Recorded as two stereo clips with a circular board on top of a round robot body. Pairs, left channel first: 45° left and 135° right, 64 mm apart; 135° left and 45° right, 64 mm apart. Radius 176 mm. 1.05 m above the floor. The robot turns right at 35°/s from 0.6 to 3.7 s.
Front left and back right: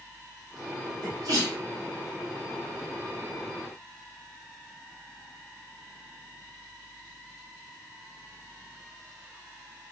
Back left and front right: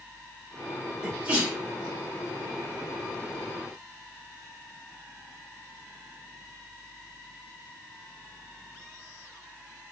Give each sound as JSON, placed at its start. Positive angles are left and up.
{"t": 1.0, "sound": "a sneeze", "azimuth_deg": -120, "distance_m": 1.7}